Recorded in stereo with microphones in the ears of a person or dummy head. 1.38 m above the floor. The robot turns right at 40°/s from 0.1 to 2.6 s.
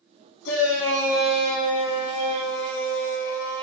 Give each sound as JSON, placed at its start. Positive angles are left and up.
{"t": 0.5, "sound": "a shout", "azimuth_deg": 80, "distance_m": 0.7}